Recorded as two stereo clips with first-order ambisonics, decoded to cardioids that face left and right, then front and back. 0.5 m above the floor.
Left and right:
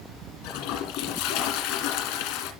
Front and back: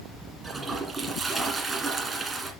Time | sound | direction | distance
0.4 | a toilet flushing | 100° left | 1.8 m